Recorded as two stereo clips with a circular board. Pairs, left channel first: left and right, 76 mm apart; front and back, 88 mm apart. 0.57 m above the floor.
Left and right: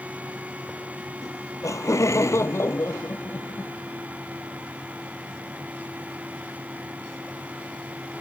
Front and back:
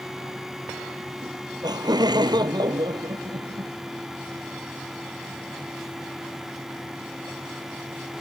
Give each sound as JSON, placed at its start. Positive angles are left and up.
{"t": 1.2, "sound": "laughter", "azimuth_deg": 140}